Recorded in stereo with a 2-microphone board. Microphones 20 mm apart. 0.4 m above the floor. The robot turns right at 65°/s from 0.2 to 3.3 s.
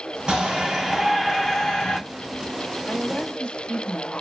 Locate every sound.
0.3 s a shout: 50° right, 3 m; by 2.0 s 60° left, 3 m
2.9 s a woman speaking: 55° left (ahead or behind), 2.5 m; by 4.2 s 40° left (ahead or behind), 2.5 m